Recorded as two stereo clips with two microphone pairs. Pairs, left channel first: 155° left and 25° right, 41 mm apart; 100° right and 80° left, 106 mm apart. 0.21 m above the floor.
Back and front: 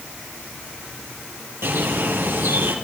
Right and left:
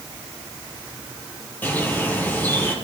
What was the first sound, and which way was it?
A bird, 30° right.